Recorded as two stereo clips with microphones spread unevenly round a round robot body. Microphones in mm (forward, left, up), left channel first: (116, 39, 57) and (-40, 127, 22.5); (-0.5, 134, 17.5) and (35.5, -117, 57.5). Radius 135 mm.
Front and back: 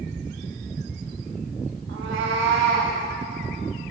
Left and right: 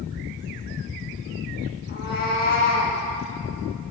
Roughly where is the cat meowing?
Behind left.